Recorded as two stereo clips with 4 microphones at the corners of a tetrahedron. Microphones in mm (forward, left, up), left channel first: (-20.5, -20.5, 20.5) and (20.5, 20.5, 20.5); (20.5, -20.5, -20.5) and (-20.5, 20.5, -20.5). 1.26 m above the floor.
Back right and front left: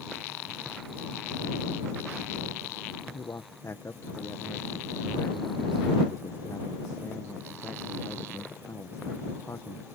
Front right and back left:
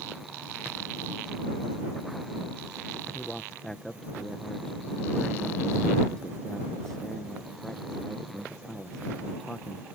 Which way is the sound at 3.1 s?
125° right.